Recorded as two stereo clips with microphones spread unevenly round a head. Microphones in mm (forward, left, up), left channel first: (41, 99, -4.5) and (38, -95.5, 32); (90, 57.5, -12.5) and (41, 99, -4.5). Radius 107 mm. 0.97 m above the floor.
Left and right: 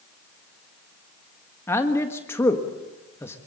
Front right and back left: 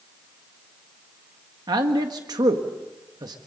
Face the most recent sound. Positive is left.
turn(degrees=160)